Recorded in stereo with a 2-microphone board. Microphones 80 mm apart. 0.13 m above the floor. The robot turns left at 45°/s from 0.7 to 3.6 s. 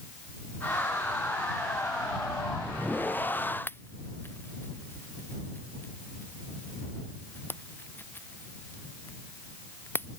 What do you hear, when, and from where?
3.7 s a pop: 25° left (ahead or behind)